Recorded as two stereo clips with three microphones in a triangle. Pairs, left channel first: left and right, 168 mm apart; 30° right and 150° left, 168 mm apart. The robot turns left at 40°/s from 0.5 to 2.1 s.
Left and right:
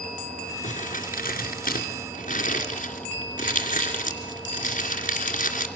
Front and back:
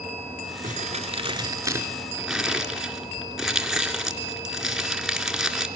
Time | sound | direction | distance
0.6 | crumpling | 120° left | 2.5 m